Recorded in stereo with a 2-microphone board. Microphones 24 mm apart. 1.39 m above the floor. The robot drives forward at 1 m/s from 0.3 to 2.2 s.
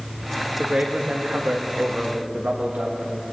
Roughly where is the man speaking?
Right.